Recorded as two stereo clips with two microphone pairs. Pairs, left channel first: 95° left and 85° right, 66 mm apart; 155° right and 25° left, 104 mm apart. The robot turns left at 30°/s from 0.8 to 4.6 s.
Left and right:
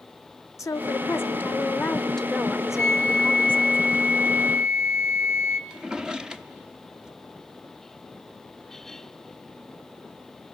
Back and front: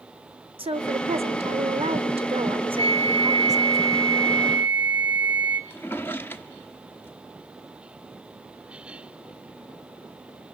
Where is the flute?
15° left, 2.0 m; by 5.6 s 40° right, 2.0 m.